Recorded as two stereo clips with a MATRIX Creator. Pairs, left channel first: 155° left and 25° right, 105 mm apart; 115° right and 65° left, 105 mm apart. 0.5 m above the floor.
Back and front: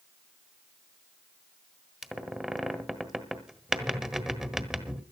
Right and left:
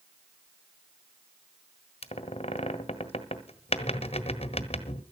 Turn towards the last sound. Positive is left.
turn(degrees=-105)